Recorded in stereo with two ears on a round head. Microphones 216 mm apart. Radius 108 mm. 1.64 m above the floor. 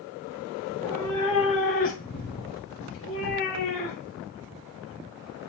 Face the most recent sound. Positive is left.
turn(degrees=65)  # may be behind; listen again after turning